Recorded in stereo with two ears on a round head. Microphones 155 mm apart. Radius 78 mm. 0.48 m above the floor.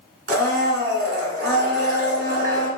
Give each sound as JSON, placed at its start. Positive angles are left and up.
{"t": 0.3, "sound": "a blender", "side_deg": -70, "distance_m": 1.3}